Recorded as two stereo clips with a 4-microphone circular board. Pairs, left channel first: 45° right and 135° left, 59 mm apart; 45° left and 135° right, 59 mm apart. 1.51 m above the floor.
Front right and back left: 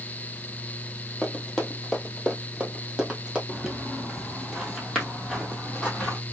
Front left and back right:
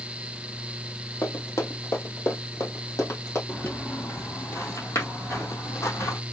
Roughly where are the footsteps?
Ahead left.